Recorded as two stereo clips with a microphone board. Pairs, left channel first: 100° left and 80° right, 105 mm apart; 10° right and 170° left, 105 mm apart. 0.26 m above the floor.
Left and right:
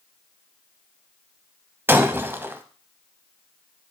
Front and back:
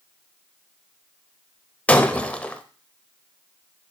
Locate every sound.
1.9 s breaking glass: 70° right, 0.6 m